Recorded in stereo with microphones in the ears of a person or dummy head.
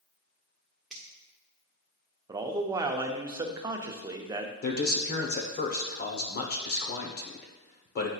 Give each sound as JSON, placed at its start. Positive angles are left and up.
{"t": 0.9, "sound": "a finger snap", "side_deg": 0, "distance_m": 1.4}
{"t": 2.3, "sound": "a man speaking", "side_deg": -20, "distance_m": 0.6}
{"t": 4.6, "sound": "a man speaking", "side_deg": 55, "distance_m": 1.0}